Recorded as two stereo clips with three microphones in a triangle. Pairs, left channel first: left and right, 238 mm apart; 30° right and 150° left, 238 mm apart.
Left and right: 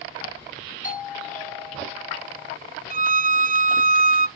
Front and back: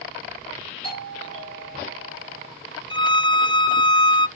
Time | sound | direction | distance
0.8 | a doorbell | 35° left | 4.5 m
2.9 | a violin | 85° right | 0.6 m